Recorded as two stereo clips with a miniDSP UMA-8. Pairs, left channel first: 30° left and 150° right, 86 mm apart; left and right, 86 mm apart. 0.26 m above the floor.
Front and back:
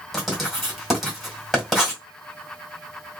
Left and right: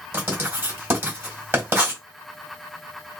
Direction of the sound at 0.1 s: 65° right.